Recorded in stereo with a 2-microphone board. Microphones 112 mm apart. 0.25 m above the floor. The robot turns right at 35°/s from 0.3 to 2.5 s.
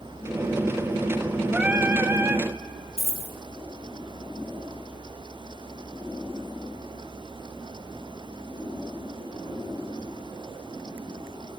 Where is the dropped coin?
75° left (ahead or behind), 2.5 m.